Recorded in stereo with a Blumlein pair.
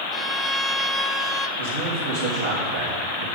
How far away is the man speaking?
About 3 m.